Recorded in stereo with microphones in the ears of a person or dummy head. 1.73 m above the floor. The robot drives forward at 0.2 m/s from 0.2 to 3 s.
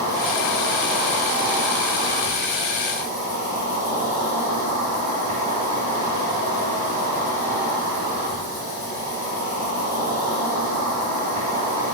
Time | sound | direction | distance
0.0 | an insect | 35° right (ahead or behind) | 1.9 m